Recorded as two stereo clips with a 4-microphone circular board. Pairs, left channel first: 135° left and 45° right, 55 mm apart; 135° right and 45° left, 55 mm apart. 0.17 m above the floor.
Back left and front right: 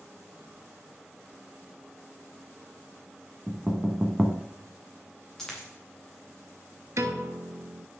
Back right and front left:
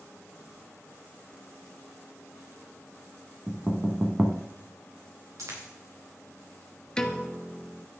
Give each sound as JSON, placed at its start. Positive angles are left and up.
{"t": 3.5, "sound": "knocking", "azimuth_deg": 25, "distance_m": 1.0}
{"t": 5.4, "sound": "a dropped coin", "azimuth_deg": 50, "distance_m": 4.0}
{"t": 7.0, "sound": "a piano", "azimuth_deg": -60, "distance_m": 0.8}